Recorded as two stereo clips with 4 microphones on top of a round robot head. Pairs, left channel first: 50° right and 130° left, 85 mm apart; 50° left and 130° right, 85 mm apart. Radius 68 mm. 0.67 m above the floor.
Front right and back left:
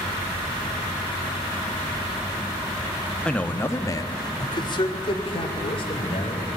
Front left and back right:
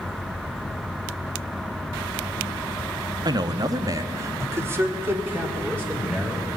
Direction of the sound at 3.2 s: 125° right.